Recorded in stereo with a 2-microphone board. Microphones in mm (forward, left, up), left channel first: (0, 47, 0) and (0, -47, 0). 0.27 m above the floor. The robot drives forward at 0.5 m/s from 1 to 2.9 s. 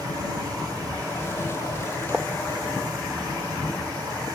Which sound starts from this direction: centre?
Writing, at 2.1 s.